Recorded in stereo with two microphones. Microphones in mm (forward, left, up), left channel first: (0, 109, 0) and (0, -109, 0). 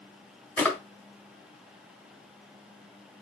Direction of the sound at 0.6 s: 10° left (ahead or behind).